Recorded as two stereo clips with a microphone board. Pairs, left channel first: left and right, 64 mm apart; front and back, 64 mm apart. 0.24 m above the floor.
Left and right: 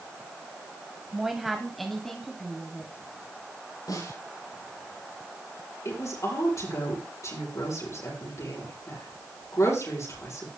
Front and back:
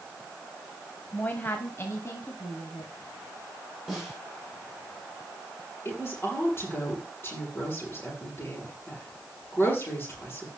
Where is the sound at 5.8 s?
55° left, 7 m.